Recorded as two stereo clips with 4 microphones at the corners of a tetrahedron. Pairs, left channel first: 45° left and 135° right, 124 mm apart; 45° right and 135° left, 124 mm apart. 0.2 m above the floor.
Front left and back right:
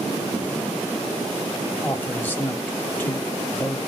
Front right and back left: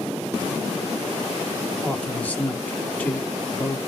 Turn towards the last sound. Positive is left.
turn(degrees=5)